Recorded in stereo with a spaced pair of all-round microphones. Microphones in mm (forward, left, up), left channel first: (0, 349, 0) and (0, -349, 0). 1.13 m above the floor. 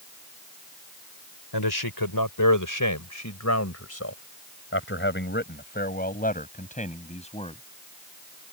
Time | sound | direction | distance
1.5 | a man speaking | 35° left (ahead or behind) | ?